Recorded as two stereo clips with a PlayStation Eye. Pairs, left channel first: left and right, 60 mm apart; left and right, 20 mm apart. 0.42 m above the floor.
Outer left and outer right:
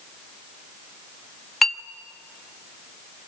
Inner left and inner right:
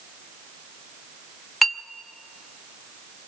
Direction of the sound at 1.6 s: Centre (ahead or behind).